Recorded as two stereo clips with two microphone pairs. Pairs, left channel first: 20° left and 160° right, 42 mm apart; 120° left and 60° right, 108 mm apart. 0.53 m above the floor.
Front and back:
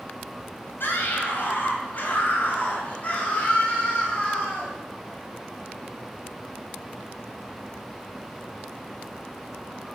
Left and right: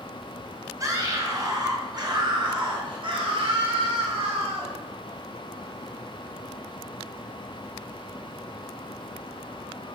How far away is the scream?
About 3.5 m.